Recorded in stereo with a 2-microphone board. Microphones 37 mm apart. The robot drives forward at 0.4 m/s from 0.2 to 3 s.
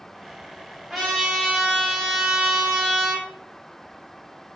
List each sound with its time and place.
0.9 s a trumpet: centre (ahead or behind), 1.4 m